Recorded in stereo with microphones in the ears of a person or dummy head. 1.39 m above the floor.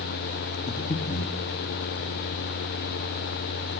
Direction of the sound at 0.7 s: 30° left (ahead or behind).